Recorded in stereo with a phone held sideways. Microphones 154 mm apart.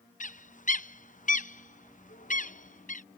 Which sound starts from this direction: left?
A bird, at 0.2 s.